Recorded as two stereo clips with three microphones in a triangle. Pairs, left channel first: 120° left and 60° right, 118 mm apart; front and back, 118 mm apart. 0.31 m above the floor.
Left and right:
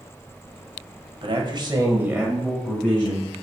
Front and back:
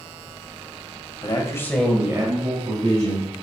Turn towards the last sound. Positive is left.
turn(degrees=-175)